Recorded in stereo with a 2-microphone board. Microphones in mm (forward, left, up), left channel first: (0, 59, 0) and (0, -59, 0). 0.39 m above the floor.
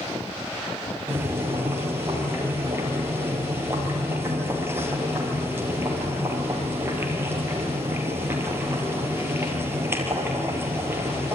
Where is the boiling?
20° right (ahead or behind), 3 m.